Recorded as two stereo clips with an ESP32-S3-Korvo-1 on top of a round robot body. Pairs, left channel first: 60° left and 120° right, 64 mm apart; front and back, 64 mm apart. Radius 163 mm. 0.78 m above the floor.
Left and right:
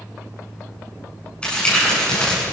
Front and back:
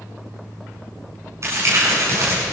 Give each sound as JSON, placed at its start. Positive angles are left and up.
{"t": 1.4, "sound": "crumpling", "azimuth_deg": 135, "distance_m": 9.0}